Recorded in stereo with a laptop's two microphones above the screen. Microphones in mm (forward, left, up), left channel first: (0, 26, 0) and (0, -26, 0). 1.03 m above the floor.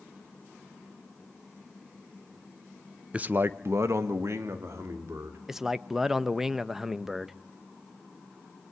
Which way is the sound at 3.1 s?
20° right (ahead or behind).